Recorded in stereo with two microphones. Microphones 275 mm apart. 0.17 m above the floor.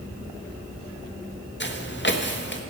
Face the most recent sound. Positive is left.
turn(degrees=40)  # may be behind; listen again after turning